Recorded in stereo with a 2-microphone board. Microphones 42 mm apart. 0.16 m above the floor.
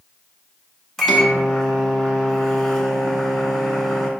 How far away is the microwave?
About 0.8 m.